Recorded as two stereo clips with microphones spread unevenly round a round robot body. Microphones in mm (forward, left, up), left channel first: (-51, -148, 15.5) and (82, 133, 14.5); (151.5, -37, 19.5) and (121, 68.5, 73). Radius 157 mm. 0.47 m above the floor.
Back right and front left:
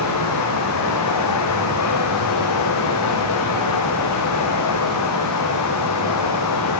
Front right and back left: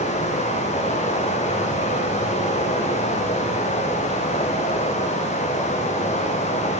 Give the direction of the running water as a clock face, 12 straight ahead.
3 o'clock.